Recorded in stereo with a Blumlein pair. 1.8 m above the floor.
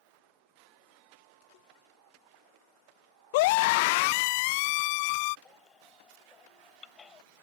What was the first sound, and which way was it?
A scream, 50° left.